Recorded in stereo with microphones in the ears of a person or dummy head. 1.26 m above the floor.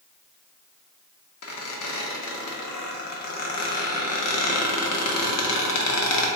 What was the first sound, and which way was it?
A squeak, 80° left.